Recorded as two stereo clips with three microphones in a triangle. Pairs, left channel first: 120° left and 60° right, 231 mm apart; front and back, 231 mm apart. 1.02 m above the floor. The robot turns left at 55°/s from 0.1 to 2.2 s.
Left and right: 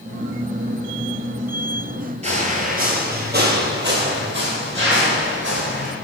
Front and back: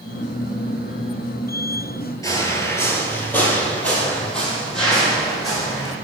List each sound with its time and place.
2.2 s footsteps: 60° right, 1.1 m; by 5.9 s 90° right, 2.5 m